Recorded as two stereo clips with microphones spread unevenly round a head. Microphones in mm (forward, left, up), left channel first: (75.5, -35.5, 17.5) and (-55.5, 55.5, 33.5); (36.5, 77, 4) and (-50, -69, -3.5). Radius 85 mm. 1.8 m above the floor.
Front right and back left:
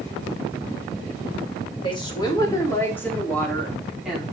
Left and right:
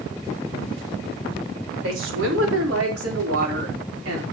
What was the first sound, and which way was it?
A woman speaking, 100° right.